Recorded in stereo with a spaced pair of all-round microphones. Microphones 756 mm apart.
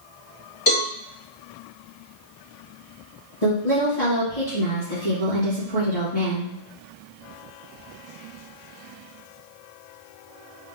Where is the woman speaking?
65° left (ahead or behind), 1.9 m.